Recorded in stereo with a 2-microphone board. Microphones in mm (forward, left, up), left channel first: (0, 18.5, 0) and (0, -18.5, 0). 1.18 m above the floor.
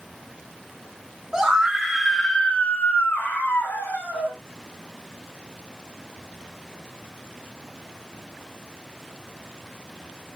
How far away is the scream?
About 1.6 m.